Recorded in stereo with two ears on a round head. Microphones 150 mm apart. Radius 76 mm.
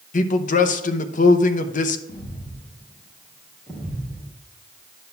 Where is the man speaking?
50° left (ahead or behind), 0.9 m.